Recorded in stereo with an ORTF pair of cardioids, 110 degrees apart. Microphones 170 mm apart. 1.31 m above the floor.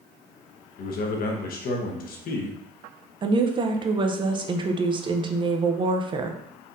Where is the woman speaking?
30° right, 0.7 m.